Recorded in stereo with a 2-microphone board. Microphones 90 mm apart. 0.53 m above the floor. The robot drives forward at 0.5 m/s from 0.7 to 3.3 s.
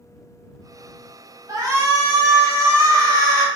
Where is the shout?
40° right (ahead or behind), 1.6 m.